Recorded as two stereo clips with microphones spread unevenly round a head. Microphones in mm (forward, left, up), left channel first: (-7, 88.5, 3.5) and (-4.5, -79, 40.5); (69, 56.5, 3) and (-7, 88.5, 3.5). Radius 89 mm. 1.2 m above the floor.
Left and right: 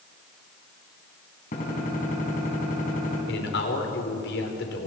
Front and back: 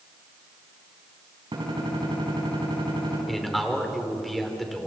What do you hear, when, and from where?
1.5 s a gunshot: 135° left, 5.5 m
3.3 s a man speaking: 65° left, 4 m